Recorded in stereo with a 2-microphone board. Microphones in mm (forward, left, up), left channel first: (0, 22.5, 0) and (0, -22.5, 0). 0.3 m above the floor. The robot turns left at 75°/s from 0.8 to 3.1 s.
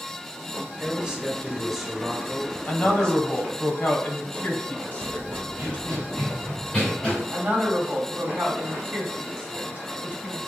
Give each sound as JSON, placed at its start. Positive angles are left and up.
{"t": 0.8, "sound": "a man speaking", "side_deg": -20, "distance_m": 1.1}
{"t": 2.7, "sound": "a woman speaking", "side_deg": 40, "distance_m": 1.2}
{"t": 5.0, "sound": "running footsteps", "side_deg": -50, "distance_m": 1.4}
{"t": 7.3, "sound": "a woman speaking", "side_deg": -25, "distance_m": 1.7}